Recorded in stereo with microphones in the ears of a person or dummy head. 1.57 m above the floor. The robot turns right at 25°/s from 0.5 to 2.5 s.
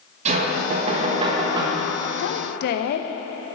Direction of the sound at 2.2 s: 65° left (ahead or behind).